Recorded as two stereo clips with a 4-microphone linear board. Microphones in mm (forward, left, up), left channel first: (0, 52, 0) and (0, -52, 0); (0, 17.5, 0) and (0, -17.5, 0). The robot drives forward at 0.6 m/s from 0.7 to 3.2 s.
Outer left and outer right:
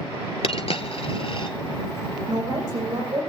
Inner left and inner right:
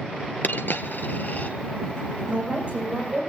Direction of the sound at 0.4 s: 70° left (ahead or behind).